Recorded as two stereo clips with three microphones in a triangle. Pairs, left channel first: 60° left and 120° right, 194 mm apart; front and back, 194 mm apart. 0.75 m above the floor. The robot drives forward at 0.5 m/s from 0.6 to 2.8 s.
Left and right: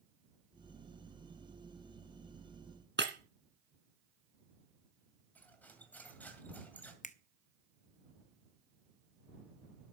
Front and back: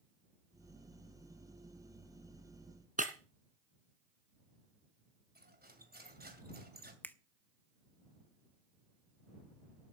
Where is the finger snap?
80° left, 0.7 m.